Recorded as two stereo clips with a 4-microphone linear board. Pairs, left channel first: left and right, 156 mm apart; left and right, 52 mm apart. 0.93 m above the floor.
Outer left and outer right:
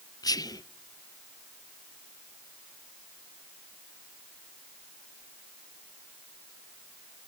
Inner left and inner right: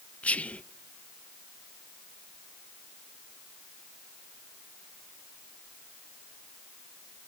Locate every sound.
0.2 s whispering: 25° left (ahead or behind), 0.6 m